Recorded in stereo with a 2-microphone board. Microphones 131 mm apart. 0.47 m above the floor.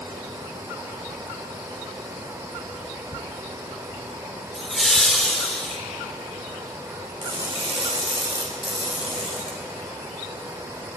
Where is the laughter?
5° left (ahead or behind), 1.6 m.